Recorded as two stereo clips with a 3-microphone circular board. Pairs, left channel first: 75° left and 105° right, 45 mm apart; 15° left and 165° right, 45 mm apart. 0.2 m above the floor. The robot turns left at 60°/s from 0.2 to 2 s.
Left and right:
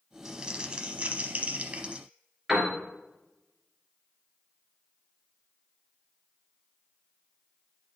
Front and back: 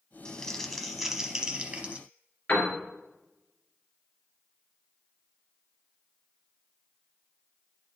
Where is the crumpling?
35° right, 0.8 m; by 2.0 s 140° right, 0.8 m.